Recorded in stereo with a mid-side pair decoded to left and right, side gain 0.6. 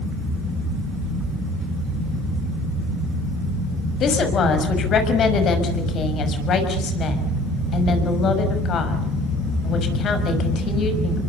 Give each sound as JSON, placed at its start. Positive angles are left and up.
{"t": 4.0, "sound": "a woman speaking", "azimuth_deg": 50, "distance_m": 6.0}